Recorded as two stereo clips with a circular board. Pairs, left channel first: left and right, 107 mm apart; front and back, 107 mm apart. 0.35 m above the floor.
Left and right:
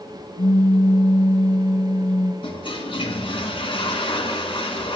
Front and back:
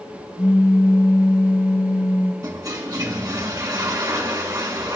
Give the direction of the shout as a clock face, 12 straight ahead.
No shout in this recording.